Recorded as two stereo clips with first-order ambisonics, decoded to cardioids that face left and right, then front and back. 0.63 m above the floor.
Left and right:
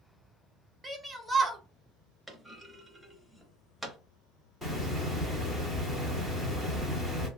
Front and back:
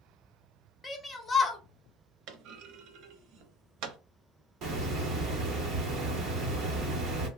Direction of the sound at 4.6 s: Straight behind.